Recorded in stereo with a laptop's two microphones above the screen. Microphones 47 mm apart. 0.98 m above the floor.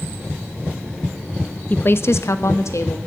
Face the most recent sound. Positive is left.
turn(degrees=75)  # may be behind; listen again after turning